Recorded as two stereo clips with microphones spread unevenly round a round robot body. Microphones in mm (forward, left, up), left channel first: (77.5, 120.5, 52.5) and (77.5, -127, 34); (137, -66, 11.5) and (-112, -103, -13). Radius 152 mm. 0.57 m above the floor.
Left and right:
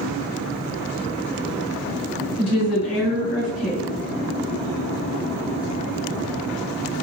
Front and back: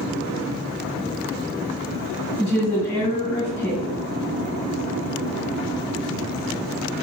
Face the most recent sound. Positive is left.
turn(degrees=90)